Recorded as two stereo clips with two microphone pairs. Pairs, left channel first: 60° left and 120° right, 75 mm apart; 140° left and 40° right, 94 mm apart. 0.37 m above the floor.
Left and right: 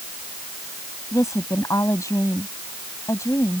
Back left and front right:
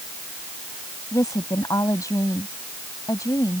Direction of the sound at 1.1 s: 90° left.